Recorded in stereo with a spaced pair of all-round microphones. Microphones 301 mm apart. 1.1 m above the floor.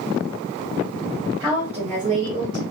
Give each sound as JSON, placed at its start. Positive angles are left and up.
{"t": 1.4, "sound": "a woman speaking", "side_deg": 0, "distance_m": 1.4}